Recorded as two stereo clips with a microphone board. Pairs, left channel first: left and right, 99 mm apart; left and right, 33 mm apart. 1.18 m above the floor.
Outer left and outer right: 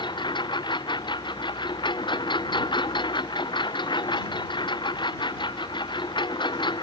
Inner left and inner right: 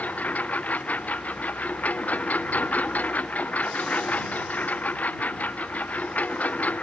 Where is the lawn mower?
50° left (ahead or behind).